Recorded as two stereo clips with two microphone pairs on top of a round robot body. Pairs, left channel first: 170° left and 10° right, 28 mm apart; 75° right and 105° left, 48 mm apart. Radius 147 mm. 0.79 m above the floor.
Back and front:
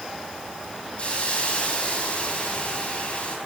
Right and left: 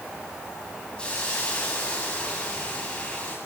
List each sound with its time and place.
1.0 s a hiss: 145° right, 7.5 m